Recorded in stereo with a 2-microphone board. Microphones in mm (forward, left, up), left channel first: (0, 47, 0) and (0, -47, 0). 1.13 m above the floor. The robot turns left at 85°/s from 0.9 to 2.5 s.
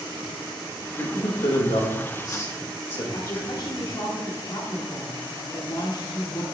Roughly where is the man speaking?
Left.